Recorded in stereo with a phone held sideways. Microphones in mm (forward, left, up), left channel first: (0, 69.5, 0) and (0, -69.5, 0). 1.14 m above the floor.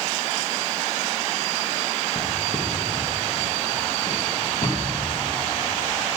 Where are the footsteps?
45° left (ahead or behind), 3 m; by 5.6 s 35° left (ahead or behind), 7.5 m.